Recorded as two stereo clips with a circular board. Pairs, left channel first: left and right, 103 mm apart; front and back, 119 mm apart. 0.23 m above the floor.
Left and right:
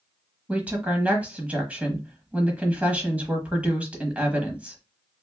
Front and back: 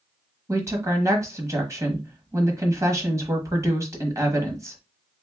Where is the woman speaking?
155° right, 1.0 m.